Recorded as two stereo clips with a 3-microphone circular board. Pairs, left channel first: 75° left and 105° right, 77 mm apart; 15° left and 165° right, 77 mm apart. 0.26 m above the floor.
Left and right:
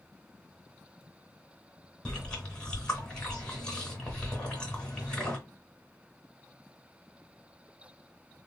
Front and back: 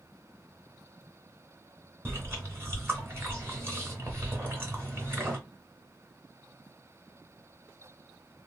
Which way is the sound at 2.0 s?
145° left.